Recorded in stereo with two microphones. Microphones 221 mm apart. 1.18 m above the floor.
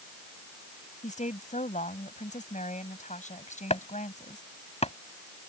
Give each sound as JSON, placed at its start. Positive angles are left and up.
{"t": 1.0, "sound": "a woman speaking", "side_deg": 35}
{"t": 3.7, "sound": "chopping", "side_deg": 30}